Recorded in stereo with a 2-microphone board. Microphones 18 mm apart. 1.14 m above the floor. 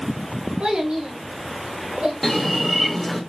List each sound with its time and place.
0.6 s a child speaking: 80° right, 2 m; by 2.1 s 60° right (ahead or behind), 2.5 m
2.2 s a bird: 10° left (ahead or behind), 1.7 m